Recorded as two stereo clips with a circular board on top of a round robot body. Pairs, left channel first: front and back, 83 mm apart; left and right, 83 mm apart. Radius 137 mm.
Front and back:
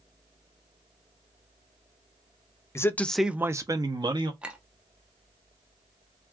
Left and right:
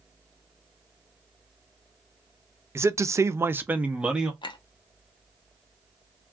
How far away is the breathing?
No breathing in this recording.